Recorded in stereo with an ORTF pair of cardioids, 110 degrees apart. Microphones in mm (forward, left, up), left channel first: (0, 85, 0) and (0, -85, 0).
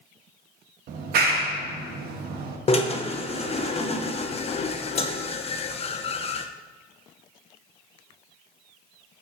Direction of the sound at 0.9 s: 65° right.